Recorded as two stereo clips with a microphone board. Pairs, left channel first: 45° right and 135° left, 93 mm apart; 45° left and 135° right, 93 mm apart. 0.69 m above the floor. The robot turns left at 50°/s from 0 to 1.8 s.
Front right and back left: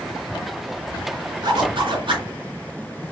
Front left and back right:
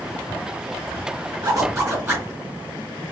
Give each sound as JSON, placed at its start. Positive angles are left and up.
{"t": 1.4, "sound": "a zipper", "azimuth_deg": -175, "distance_m": 3.0}